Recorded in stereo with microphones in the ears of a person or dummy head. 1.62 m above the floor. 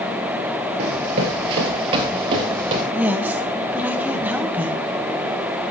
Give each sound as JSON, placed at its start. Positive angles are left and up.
{"t": 0.8, "sound": "running footsteps", "side_deg": -25, "distance_m": 1.7}
{"t": 2.9, "sound": "a woman speaking", "side_deg": -5, "distance_m": 1.0}